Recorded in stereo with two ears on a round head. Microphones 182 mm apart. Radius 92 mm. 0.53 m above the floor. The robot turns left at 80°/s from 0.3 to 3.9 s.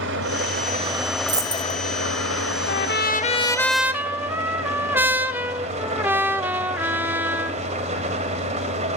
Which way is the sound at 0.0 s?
105° right.